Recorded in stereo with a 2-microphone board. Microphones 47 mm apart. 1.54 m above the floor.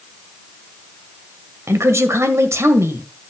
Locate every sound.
1.7 s a woman speaking: 85° right, 1.6 m